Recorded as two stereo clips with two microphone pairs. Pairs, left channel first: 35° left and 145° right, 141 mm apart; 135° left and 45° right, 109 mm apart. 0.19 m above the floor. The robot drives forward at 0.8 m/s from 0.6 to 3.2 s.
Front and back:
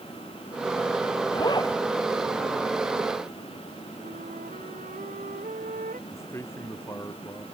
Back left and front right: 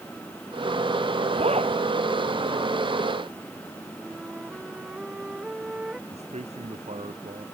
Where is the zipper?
25° right.